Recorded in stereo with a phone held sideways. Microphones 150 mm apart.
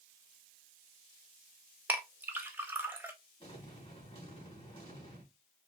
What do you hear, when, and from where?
1.9 s a clink: 10° right (ahead or behind), 1.0 m
3.4 s an explosion: 40° left (ahead or behind), 2.5 m